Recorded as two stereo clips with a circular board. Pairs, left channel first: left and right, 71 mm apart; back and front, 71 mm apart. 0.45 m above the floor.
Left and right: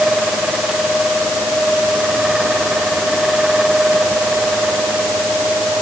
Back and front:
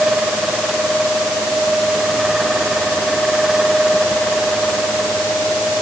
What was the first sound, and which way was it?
Only background noise.